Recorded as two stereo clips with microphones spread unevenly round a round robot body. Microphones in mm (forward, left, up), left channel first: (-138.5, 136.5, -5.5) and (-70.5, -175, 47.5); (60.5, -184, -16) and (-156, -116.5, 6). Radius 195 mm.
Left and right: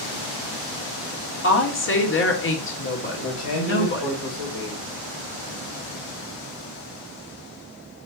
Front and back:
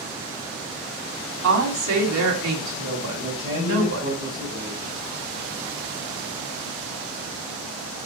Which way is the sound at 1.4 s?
155° left.